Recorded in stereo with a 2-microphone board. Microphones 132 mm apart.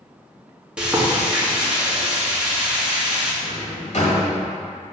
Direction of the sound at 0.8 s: 10° right (ahead or behind).